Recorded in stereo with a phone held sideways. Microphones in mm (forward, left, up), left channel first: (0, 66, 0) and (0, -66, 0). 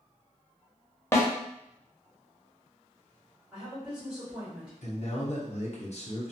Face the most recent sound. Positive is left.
turn(degrees=55)  # may be behind; listen again after turning